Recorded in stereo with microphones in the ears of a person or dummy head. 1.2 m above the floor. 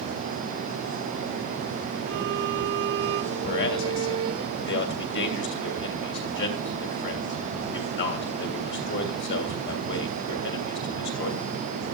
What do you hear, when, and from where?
2.1 s a violin: 60° right (ahead or behind), 2 m
3.4 s a man speaking: 55° left (ahead or behind), 3 m